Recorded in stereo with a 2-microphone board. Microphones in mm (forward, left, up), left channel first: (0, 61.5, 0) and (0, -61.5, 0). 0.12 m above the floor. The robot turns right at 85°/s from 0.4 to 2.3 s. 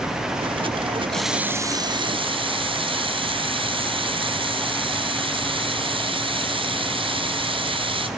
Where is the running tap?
170° left, 1.0 m; by 8.1 s 90° right, 1.0 m.